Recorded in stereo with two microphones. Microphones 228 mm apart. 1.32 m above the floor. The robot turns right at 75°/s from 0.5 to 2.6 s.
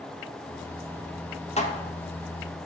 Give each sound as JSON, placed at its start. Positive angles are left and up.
{"t": 1.6, "sound": "dishes clattering", "side_deg": 30, "distance_m": 1.0}